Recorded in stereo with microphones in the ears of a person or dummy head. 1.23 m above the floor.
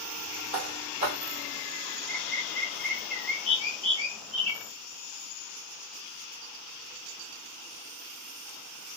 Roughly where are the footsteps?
Right.